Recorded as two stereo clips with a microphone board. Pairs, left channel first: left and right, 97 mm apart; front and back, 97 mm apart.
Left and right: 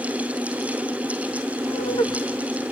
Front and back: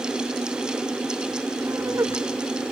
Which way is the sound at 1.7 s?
125° left.